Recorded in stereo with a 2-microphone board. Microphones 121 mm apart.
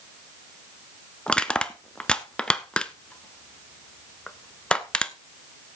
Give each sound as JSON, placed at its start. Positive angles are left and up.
{"t": 1.3, "sound": "crushing", "side_deg": 10, "distance_m": 0.6}